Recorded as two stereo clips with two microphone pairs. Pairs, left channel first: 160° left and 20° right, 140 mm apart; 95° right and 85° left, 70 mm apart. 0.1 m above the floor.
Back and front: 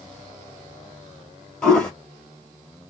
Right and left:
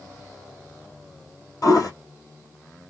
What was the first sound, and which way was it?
A toilet flushing, 115° right.